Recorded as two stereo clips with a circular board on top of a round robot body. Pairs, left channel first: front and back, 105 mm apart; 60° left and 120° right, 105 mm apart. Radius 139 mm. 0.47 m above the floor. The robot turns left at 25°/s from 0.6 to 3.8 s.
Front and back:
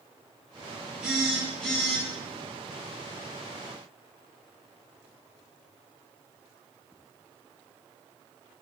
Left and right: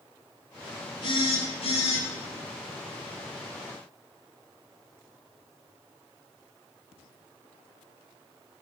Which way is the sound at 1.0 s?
100° left.